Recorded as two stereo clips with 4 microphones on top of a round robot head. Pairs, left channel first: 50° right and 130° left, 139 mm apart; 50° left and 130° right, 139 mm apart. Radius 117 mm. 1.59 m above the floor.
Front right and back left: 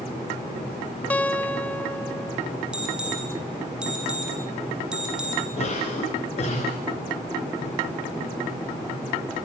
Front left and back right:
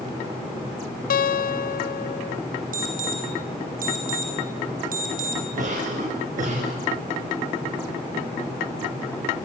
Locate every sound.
1.1 s a guitar: 30° left, 0.9 m
2.7 s an alarm: 150° right, 6.5 m
5.6 s a cough: 100° right, 7.5 m